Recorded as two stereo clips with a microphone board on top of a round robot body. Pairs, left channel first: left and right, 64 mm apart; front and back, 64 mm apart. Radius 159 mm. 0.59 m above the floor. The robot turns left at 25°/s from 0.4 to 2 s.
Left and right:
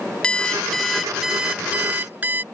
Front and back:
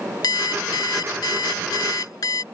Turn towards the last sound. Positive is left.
turn(degrees=-25)